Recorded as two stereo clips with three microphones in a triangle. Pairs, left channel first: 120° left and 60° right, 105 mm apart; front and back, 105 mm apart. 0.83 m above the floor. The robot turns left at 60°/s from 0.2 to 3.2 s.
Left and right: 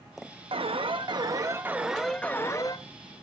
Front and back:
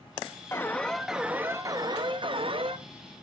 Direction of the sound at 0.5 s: 60° right.